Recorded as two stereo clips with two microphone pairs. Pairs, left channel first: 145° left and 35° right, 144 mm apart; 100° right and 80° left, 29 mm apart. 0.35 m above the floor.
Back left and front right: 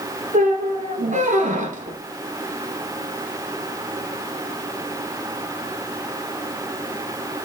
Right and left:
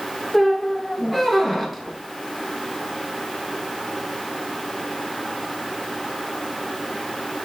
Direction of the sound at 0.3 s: 10° right.